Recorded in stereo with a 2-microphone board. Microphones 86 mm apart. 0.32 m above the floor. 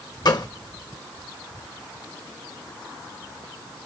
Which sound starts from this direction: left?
A gunshot, at 0.2 s.